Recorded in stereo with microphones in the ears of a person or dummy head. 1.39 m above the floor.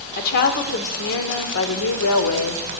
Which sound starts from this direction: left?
A woman speaking, at 0.2 s.